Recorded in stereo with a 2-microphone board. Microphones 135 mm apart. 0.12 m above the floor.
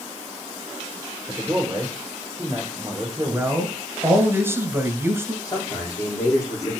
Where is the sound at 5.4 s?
30° left (ahead or behind), 4 m.